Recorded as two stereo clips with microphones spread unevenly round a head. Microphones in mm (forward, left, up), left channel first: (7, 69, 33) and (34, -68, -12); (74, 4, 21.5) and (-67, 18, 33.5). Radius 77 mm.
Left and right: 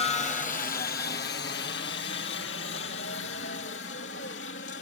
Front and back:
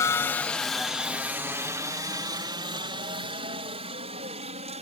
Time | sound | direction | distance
0.0 | a helicopter | 50° left | ?